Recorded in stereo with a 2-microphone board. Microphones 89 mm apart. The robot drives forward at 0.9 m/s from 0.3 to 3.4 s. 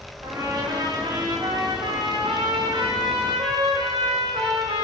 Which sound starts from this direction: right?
A trumpet, at 0.2 s.